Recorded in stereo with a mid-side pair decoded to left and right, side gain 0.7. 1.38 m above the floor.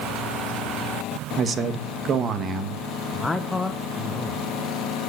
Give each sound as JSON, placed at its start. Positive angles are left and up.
{"t": 1.4, "sound": "a man speaking", "azimuth_deg": -30, "distance_m": 1.6}
{"t": 3.1, "sound": "a man speaking", "azimuth_deg": 15, "distance_m": 1.2}